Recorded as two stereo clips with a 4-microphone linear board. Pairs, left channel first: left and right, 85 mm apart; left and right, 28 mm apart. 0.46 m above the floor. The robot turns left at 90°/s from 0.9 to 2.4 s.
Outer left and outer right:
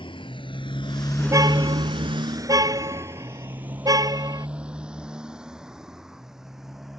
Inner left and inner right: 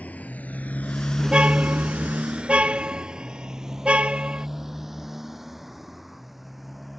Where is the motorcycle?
85° left; by 7.0 s 5° right (ahead or behind).